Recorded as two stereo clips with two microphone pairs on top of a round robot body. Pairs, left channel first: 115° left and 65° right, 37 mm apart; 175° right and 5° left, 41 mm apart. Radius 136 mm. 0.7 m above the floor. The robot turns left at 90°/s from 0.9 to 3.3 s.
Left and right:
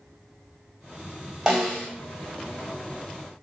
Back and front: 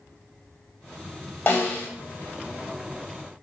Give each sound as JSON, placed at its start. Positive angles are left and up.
{"t": 1.5, "sound": "a snare drum", "azimuth_deg": -140, "distance_m": 1.5}